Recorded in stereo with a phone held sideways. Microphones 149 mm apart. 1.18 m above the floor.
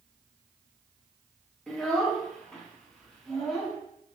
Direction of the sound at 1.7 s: Centre (ahead or behind).